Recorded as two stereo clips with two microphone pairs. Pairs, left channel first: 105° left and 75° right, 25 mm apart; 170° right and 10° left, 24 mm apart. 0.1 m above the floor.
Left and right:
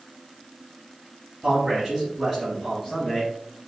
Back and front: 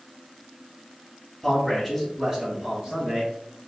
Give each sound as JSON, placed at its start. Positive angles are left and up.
{"t": 1.4, "sound": "a man speaking", "azimuth_deg": -95, "distance_m": 1.9}